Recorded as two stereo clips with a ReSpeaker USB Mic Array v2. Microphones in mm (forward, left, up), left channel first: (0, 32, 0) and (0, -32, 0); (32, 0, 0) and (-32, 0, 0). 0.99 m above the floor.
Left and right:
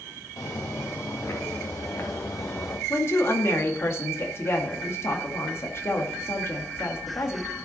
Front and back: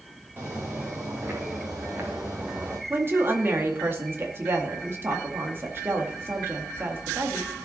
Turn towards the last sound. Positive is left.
turn(degrees=130)